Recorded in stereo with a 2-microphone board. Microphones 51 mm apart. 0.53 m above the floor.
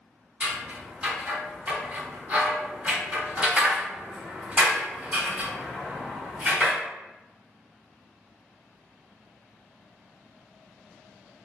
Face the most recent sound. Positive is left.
turn(degrees=-30)  # may be behind; listen again after turning